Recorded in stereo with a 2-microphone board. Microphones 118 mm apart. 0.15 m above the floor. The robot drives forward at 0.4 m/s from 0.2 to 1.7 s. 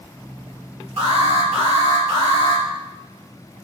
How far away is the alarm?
About 3.5 m.